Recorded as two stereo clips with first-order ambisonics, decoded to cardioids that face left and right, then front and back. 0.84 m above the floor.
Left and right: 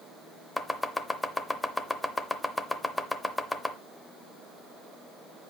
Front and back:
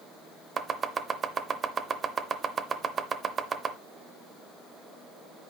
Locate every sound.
0.6 s chopping: 160° left, 0.6 m